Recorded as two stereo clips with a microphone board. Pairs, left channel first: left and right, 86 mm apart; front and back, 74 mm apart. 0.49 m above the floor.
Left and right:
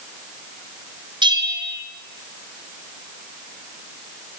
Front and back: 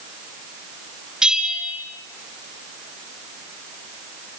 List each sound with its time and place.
1.2 s a bell: 100° right, 3.5 m